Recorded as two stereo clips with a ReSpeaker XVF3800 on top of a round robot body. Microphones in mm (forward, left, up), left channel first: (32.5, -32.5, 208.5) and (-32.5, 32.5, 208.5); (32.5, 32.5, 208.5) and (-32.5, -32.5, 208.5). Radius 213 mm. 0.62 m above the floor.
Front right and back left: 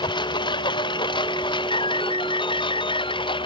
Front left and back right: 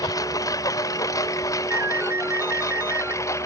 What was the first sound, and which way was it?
A lawn mower, 10° right.